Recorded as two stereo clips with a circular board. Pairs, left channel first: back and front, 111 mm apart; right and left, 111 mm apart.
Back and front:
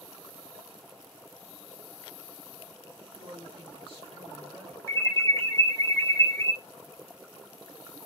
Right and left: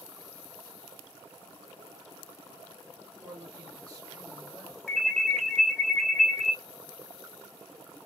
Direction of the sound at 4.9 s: 165° right.